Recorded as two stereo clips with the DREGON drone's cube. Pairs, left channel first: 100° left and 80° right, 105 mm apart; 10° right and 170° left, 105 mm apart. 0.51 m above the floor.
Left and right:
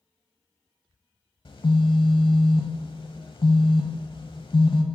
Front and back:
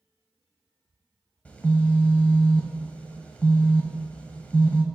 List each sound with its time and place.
1.4 s a phone buzzing: 65° left, 0.8 m